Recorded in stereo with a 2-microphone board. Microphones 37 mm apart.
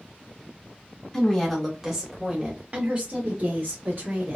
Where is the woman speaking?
15° left (ahead or behind), 1.1 m; by 4.4 s 55° right (ahead or behind), 1.8 m.